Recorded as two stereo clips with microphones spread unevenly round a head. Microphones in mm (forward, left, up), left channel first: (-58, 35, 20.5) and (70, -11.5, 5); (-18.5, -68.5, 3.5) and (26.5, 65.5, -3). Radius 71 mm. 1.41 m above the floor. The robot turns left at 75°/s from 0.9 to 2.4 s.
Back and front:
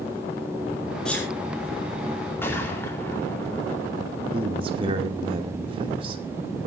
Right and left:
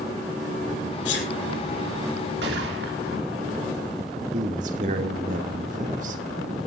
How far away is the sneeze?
About 4 m.